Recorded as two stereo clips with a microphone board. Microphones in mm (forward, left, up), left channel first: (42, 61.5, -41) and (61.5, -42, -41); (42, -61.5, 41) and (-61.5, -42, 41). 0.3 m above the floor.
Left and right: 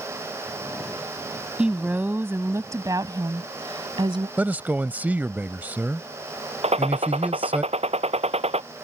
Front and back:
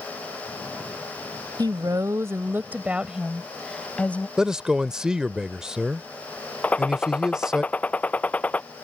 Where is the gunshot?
85° right.